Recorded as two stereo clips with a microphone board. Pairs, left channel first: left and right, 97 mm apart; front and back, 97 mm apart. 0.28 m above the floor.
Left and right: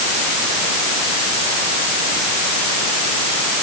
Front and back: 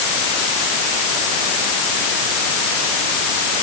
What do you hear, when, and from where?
Only background noise.